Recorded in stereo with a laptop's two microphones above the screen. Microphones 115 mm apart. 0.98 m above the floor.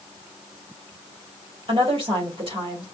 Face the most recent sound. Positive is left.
turn(degrees=-50)  # may be behind; listen again after turning